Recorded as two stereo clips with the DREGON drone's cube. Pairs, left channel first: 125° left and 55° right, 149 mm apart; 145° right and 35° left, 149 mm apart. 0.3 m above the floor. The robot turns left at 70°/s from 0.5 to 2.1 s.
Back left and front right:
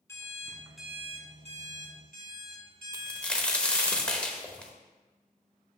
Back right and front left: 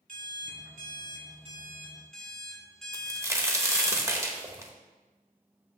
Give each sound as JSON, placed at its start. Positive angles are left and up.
{"t": 0.1, "sound": "an alarm clock", "azimuth_deg": 55, "distance_m": 1.3}
{"t": 2.9, "sound": "a crack", "azimuth_deg": 55, "distance_m": 0.9}